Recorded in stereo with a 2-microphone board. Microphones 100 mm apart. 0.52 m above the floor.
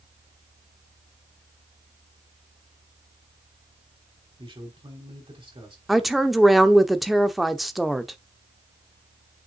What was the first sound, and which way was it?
A man speaking, 60° right (ahead or behind).